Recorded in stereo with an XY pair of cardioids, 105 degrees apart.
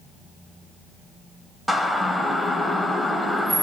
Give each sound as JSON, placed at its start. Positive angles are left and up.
{"t": 1.7, "sound": "a siren", "azimuth_deg": -5, "distance_m": 5.0}